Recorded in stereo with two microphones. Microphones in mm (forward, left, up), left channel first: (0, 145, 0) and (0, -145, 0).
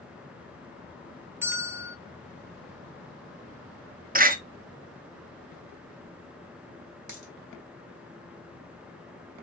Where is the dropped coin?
85° right, 1.6 m.